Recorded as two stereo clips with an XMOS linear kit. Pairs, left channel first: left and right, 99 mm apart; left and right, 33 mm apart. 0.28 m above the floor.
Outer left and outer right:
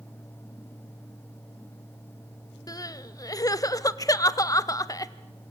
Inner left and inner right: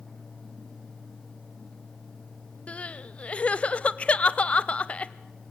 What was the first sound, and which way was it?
Crying, 30° left (ahead or behind).